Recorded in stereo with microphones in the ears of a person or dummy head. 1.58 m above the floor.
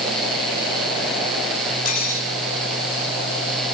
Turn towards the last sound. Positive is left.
turn(degrees=50)  # may be behind; listen again after turning